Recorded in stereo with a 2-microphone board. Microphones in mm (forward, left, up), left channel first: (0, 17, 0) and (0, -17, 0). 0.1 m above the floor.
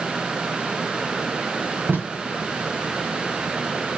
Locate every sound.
1.9 s tape being pulled: 85° right, 3.5 m